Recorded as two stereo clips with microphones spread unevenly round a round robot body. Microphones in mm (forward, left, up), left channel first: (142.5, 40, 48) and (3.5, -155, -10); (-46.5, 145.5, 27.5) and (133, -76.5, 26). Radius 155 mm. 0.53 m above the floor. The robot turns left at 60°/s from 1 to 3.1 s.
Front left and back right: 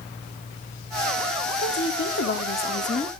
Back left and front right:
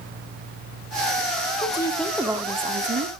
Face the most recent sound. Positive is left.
turn(degrees=-20)